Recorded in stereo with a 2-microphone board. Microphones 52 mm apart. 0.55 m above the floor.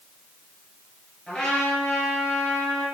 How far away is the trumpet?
About 3 m.